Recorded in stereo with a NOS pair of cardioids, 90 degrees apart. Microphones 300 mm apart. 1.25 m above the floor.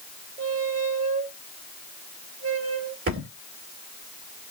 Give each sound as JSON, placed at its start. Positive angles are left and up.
{"t": 0.4, "sound": "a squeak", "azimuth_deg": -40, "distance_m": 3.0}
{"t": 3.1, "sound": "a thud", "azimuth_deg": -45, "distance_m": 3.0}